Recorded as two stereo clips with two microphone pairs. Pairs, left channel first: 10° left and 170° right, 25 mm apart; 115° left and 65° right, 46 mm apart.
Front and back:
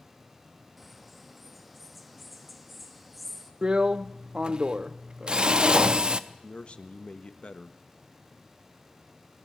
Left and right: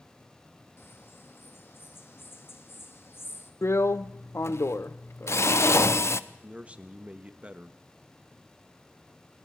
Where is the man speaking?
10° right, 1.2 m.